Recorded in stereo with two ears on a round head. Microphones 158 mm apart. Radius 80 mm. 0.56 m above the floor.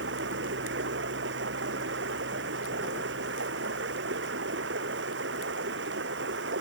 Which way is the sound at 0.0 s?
75° right (ahead or behind).